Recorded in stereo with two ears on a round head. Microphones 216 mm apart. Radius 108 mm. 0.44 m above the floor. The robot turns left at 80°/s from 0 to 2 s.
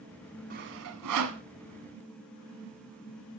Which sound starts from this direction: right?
Sawing, at 0.5 s.